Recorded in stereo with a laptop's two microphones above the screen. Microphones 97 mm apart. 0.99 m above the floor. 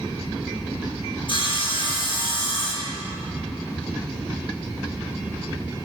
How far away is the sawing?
About 1.5 m.